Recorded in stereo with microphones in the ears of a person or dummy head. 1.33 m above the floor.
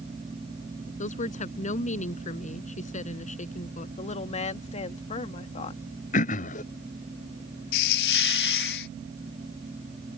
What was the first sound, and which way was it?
A woman speaking, 35° left (ahead or behind).